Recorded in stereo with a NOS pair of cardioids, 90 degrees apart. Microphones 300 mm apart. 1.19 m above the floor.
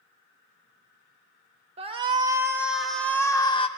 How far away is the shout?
About 1.5 m.